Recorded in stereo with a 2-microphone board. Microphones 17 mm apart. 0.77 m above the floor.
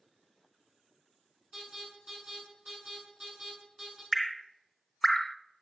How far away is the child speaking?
No child speaking in this recording.